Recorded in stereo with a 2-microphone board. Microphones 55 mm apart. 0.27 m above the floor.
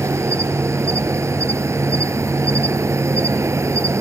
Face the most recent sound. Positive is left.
turn(degrees=-65)  # may be behind; listen again after turning